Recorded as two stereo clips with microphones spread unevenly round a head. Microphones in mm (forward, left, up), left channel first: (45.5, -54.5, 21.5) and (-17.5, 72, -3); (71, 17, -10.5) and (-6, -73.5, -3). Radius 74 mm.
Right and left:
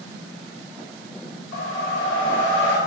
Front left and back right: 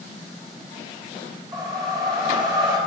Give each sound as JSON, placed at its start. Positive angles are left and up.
{"t": 1.5, "sound": "a whoosh", "azimuth_deg": -80, "distance_m": 2.5}